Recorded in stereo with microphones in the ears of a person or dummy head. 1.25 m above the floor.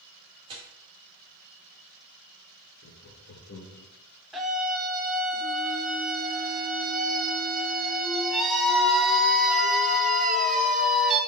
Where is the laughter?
60° left (ahead or behind), 1.4 m.